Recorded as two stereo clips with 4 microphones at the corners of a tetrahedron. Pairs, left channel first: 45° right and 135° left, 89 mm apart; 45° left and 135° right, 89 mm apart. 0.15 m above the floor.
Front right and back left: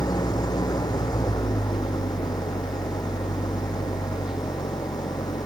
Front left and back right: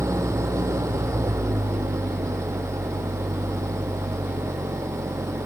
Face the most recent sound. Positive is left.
turn(degrees=-85)